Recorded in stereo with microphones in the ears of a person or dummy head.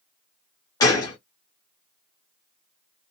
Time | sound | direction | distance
0.8 | a gunshot | 20° left (ahead or behind) | 0.8 m